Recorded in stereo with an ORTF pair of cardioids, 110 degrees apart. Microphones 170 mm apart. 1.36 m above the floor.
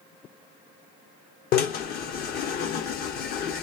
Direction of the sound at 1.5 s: 65° left.